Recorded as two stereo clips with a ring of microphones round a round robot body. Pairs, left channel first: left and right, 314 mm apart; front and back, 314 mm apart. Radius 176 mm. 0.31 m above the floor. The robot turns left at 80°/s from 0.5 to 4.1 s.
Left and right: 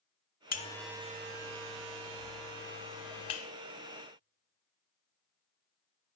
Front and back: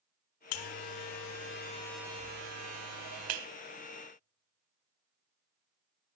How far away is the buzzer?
About 0.7 m.